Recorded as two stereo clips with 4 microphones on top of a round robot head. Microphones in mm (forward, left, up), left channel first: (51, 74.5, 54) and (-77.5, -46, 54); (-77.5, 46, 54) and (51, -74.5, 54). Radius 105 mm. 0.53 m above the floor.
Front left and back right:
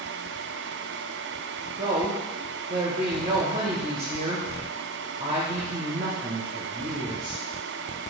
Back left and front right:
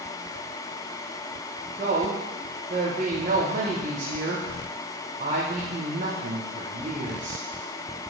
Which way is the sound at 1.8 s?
80° right.